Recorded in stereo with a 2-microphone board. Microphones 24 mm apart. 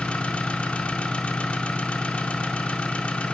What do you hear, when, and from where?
0.0 s an engine running: 70° left (ahead or behind), 1.5 m